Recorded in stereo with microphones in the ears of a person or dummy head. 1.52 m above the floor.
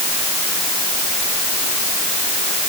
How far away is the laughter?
No laughter in this recording.